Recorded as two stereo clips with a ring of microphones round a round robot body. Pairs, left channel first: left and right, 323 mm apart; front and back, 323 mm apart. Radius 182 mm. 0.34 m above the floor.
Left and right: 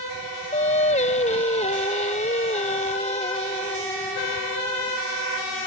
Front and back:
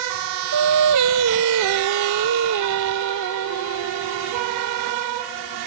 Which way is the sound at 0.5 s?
155° left.